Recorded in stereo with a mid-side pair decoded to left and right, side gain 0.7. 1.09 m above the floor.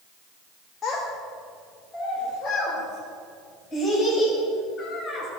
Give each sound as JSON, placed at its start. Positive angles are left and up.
{"t": 0.8, "sound": "a child speaking", "azimuth_deg": 25, "distance_m": 1.3}